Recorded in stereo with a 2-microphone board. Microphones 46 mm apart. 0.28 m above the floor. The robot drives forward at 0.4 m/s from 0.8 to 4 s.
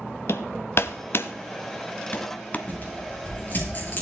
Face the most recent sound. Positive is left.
turn(degrees=40)  # may be behind; listen again after turning